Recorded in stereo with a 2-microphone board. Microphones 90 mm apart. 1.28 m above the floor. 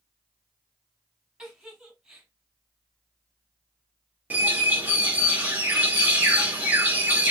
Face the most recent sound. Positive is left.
turn(degrees=-20)  # may be behind; listen again after turning